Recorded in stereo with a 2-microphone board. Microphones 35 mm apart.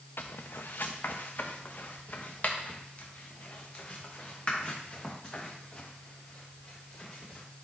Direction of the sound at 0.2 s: 80° left.